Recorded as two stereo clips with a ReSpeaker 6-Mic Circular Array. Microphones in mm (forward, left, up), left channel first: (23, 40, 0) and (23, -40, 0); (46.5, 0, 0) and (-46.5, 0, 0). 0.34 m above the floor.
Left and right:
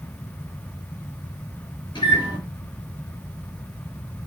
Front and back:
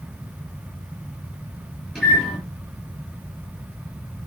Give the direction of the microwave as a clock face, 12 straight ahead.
9 o'clock.